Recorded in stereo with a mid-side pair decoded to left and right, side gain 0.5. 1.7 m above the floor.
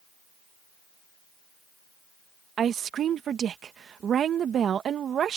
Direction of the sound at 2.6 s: 50° right.